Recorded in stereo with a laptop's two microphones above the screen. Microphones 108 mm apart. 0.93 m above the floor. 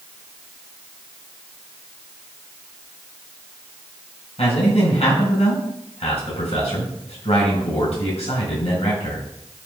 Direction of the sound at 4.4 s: 85° left.